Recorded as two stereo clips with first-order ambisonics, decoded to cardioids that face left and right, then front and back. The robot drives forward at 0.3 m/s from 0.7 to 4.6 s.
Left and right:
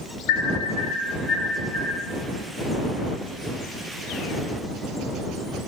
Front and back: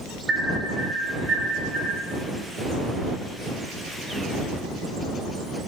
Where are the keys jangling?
No keys jangling in this recording.